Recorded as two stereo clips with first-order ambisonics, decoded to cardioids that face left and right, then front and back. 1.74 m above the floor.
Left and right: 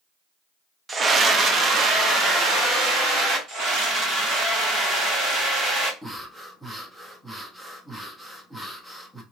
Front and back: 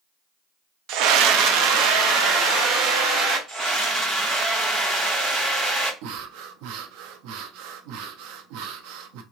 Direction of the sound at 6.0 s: 175° right.